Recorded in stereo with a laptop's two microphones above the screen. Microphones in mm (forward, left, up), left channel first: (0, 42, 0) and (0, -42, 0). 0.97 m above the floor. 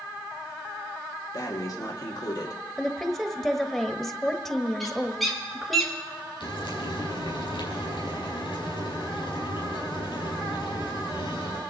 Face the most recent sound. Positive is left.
turn(degrees=65)  # may be behind; listen again after turning